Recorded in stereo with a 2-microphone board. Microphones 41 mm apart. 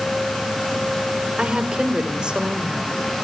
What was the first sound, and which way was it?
A woman speaking, 25° right (ahead or behind).